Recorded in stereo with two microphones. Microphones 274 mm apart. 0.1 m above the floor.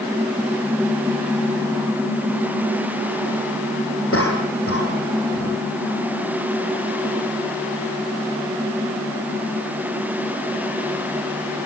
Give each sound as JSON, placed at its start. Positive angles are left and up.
{"t": 4.1, "sound": "a cough", "side_deg": 55, "distance_m": 6.5}